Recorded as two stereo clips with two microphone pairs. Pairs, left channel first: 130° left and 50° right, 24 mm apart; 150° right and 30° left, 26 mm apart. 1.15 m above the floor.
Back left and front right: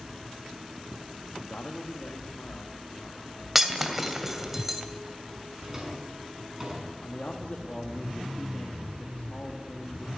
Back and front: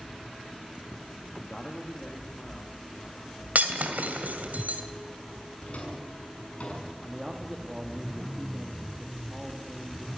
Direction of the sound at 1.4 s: 140° left.